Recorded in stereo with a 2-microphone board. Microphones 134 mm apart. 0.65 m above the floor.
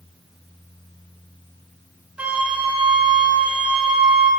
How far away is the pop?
No pop in this recording.